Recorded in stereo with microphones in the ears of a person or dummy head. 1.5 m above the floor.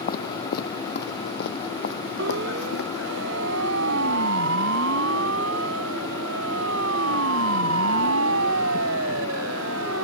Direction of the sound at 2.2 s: 65° right (ahead or behind).